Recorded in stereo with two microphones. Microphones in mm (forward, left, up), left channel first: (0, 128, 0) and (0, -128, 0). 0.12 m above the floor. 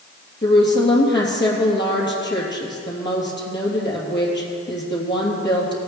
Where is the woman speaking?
45° left (ahead or behind), 3 m.